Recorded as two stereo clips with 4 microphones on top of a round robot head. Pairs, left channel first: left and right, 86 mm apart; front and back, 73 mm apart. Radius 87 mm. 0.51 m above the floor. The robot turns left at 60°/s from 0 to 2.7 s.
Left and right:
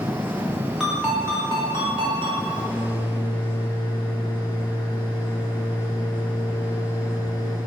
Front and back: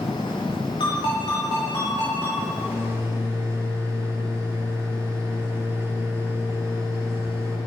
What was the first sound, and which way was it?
A ringtone, straight ahead.